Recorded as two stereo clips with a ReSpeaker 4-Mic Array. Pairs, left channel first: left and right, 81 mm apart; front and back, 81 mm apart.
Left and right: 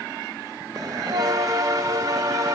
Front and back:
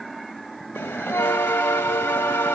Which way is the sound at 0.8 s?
55° right.